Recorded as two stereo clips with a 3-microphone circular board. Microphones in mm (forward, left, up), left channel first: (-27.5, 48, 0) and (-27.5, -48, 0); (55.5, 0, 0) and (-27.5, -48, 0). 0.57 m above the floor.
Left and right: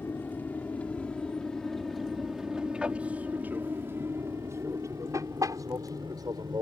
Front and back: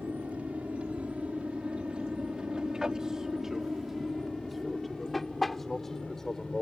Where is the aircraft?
145° left; by 6.6 s 55° right.